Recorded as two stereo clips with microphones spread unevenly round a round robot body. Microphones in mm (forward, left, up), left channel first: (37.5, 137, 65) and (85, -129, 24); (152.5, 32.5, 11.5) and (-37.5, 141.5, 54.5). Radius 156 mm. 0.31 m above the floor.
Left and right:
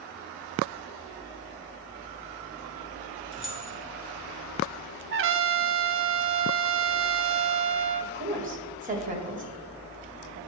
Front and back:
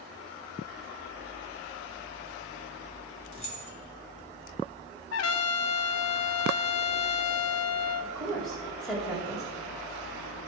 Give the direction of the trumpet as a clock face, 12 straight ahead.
1 o'clock.